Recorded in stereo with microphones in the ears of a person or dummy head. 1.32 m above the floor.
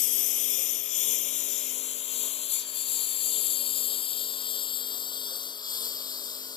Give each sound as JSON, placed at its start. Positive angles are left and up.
{"t": 0.0, "sound": "a lawn mower", "side_deg": 45}